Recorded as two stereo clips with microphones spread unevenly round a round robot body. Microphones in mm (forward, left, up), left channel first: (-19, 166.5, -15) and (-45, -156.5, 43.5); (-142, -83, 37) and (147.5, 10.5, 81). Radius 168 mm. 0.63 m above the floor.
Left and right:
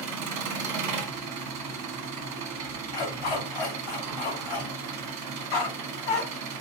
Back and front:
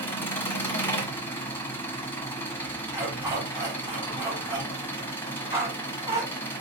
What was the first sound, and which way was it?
An engine running, 95° right.